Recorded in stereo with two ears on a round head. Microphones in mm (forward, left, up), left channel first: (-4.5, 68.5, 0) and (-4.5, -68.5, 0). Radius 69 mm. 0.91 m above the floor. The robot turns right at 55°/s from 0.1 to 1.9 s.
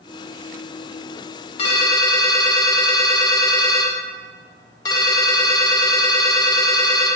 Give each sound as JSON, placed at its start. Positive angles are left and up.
{"t": 1.6, "sound": "a ringtone", "side_deg": 40, "distance_m": 0.7}